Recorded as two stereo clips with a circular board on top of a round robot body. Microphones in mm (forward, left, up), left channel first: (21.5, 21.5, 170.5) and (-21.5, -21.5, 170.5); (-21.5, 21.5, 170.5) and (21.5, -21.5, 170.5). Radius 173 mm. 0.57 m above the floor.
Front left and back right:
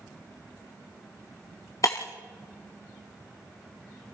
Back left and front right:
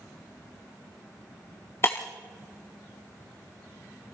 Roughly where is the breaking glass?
Left.